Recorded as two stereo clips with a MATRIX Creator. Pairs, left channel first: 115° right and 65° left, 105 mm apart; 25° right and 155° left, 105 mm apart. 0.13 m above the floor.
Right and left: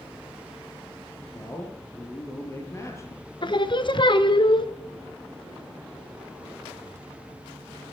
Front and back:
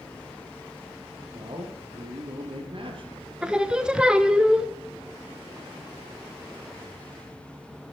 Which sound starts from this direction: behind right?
Singing, at 3.4 s.